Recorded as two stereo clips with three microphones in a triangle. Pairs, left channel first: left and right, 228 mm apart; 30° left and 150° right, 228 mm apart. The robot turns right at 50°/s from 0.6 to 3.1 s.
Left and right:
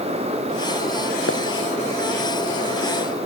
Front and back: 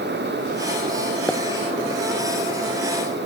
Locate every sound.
1.3 s a pop: 115° left; by 1.4 s 120° left